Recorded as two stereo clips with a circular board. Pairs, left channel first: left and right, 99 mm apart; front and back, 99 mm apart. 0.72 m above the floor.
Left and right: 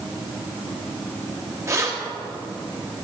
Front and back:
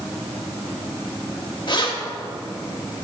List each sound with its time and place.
1.7 s keys jangling: 30° right, 1.0 m